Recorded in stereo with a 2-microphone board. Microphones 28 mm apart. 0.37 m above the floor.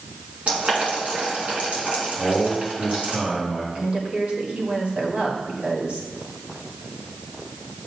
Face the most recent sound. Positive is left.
turn(degrees=-50)  # may be behind; listen again after turning